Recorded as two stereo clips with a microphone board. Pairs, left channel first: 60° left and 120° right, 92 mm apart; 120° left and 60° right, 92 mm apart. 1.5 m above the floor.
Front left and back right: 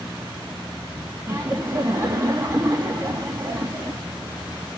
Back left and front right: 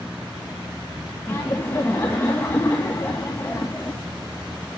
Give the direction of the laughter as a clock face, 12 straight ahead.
6 o'clock.